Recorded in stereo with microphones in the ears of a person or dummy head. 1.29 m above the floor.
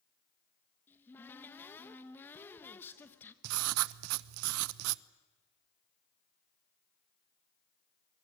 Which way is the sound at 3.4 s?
85° right.